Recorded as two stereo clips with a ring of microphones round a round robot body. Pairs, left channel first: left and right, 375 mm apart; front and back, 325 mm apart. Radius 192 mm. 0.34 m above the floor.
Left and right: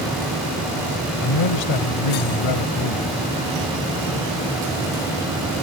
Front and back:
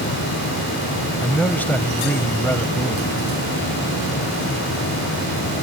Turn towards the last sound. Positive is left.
turn(degrees=85)